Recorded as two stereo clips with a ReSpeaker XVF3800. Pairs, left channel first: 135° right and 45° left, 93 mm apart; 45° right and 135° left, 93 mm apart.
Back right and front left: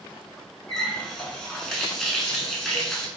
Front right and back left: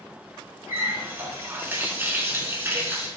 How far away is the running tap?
About 0.7 m.